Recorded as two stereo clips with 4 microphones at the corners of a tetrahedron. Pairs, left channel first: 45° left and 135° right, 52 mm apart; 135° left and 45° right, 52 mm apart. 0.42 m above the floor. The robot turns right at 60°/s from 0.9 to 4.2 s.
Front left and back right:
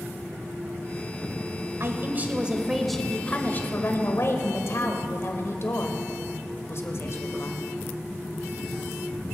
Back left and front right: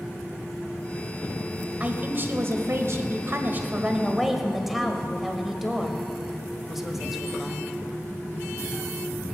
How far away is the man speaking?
About 1.5 m.